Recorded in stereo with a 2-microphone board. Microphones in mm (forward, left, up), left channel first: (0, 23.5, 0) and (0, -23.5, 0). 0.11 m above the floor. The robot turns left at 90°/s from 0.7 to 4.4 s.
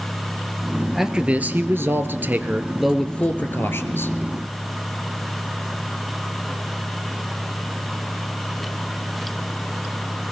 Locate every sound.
0.9 s a man speaking: 5° right, 1.5 m; by 4.1 s 70° left, 1.5 m